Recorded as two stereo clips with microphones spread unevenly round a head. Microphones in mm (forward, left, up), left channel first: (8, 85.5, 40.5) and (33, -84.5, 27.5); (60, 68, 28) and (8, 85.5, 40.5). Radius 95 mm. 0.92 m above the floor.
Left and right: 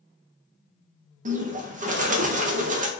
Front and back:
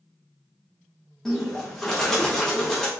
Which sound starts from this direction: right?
A bird, at 1.2 s.